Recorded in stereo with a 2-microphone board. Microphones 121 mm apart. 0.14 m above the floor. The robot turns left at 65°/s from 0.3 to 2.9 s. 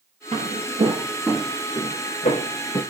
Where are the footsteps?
70° right (ahead or behind), 1.1 m; by 2.8 s 45° left (ahead or behind), 1.2 m.